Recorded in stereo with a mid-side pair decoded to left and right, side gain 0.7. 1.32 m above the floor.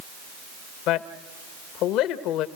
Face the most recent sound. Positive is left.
turn(degrees=60)